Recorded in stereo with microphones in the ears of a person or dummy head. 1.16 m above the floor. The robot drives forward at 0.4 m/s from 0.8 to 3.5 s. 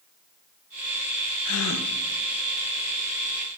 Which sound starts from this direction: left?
A gasp, at 1.4 s.